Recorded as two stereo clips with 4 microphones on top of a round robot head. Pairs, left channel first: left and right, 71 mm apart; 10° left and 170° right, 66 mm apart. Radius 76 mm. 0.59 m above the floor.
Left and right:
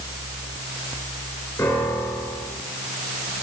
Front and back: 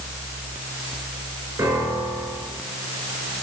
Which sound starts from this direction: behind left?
A piano, at 1.6 s.